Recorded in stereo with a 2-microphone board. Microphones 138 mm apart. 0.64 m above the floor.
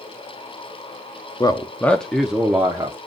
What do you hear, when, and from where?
1.4 s a man speaking: 30° left (ahead or behind), 0.7 m; by 3.0 s 20° right (ahead or behind), 1.0 m